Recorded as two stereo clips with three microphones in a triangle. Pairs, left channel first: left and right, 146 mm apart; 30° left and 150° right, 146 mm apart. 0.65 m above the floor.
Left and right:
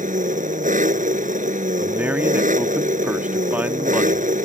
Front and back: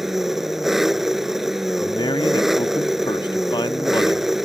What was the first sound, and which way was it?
An engine running, 60° right.